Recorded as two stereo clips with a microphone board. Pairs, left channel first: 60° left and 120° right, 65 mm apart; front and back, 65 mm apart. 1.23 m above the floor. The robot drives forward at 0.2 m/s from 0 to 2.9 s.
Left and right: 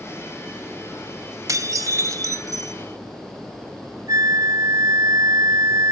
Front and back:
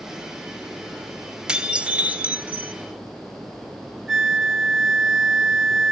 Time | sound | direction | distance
1.5 | dishes clattering | 105° right | 0.7 m
4.1 | a flute | 90° right | 0.8 m